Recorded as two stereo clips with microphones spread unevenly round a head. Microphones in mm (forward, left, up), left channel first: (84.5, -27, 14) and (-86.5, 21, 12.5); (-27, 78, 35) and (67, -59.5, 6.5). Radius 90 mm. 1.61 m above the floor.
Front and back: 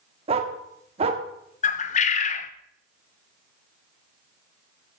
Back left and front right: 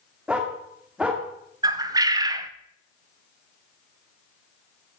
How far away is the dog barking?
About 1.5 m.